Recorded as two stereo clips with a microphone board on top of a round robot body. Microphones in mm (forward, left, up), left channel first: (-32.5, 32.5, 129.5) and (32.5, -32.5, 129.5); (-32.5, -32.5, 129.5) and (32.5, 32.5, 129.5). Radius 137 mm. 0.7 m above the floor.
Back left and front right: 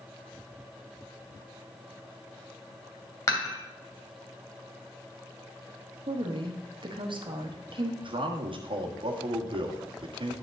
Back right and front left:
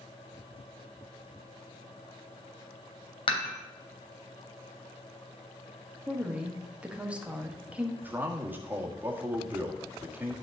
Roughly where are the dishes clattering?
Behind.